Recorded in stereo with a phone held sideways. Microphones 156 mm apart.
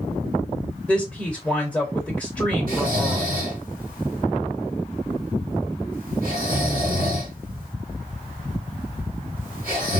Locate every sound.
0.9 s a woman speaking: 5° left (ahead or behind), 1.1 m
2.7 s snoring: 70° right (ahead or behind), 1.7 m